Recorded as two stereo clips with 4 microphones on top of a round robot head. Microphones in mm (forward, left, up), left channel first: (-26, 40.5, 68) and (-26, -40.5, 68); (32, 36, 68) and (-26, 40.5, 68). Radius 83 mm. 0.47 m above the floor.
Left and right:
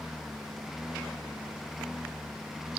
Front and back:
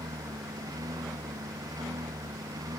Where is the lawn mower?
Straight behind; by 2.8 s 175° right.